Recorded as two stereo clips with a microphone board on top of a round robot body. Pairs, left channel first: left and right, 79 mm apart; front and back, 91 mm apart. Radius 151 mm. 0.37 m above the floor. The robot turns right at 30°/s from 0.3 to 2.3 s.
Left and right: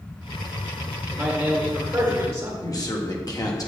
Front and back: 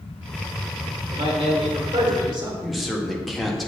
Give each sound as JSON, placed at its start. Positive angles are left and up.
{"t": 1.1, "sound": "a man speaking", "azimuth_deg": 180, "distance_m": 2.0}
{"t": 2.6, "sound": "a man speaking", "azimuth_deg": 90, "distance_m": 1.9}